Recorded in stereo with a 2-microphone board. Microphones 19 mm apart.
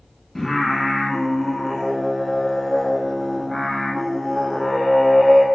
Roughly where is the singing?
Centre.